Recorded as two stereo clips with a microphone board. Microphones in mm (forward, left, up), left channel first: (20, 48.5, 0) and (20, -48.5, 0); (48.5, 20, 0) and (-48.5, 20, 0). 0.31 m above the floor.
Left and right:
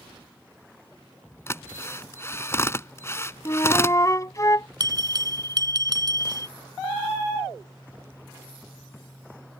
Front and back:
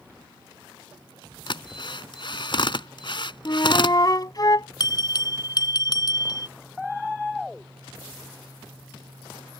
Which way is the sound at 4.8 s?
45° right.